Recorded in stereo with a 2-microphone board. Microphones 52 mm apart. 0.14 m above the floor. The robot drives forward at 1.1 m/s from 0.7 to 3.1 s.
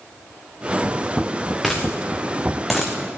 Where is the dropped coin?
Centre (ahead or behind), 3.5 m.